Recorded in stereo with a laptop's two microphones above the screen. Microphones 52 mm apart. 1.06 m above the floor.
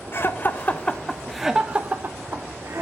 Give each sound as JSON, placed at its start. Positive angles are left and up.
{"t": 0.1, "sound": "laughter", "side_deg": 50, "distance_m": 1.1}